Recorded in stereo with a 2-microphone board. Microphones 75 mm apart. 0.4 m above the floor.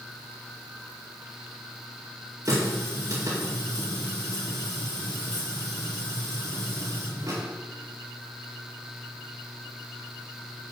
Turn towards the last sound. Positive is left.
turn(degrees=-50)  # may be behind; listen again after turning